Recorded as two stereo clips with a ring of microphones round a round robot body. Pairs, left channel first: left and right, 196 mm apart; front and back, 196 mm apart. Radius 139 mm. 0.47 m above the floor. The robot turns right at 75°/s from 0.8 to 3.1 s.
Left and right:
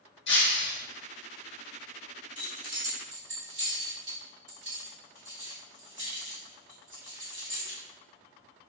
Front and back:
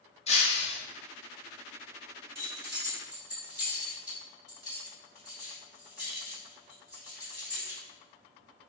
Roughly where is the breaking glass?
Ahead left.